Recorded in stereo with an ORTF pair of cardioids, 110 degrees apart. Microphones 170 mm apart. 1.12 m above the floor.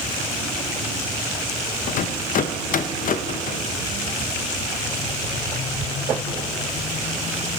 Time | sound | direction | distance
1.9 | a rattle | 55° left | 0.7 m